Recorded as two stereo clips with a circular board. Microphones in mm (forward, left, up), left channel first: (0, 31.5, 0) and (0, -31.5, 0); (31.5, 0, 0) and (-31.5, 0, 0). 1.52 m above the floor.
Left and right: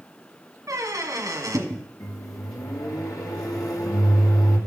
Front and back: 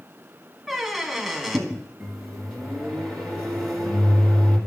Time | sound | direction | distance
0.7 | a squeak | 85° right | 1.1 m
2.0 | a microwave | 80° left | 2 m